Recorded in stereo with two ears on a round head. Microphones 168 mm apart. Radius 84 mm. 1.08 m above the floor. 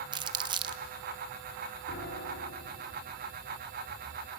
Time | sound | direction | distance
0.1 | crumpling | 25° right (ahead or behind) | 0.7 m
1.9 | a piano | 60° left (ahead or behind) | 4.5 m